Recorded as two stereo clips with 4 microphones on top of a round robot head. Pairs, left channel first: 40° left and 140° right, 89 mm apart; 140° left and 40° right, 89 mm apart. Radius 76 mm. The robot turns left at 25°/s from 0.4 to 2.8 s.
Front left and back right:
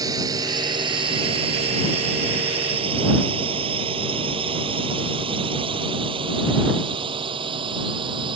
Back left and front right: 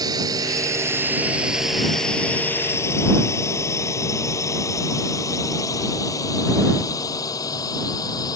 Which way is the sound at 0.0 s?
90° right.